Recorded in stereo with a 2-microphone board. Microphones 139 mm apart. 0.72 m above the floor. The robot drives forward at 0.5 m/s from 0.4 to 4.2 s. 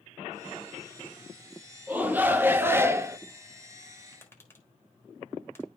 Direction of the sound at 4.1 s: 15° left (ahead or behind).